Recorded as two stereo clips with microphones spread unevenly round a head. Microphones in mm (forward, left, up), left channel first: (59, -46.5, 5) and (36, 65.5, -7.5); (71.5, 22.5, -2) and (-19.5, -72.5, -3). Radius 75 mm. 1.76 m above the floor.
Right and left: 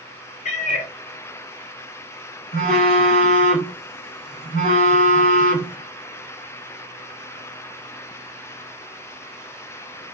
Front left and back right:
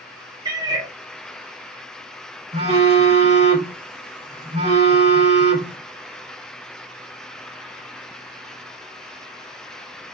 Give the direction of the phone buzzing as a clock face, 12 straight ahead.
3 o'clock.